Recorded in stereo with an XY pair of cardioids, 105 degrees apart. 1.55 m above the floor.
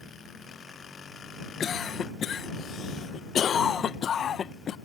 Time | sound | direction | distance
1.6 | a cough | 55° left | ?